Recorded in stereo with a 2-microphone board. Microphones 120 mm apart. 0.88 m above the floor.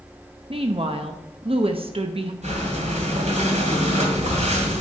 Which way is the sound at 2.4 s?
75° right (ahead or behind).